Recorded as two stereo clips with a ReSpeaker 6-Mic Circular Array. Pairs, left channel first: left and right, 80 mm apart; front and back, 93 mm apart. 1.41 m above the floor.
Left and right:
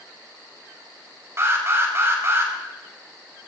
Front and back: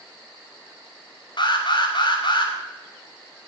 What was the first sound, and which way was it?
An alarm, 35° right.